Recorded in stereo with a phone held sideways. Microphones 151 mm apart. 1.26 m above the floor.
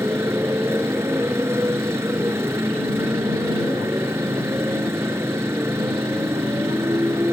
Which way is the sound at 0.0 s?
15° right (ahead or behind).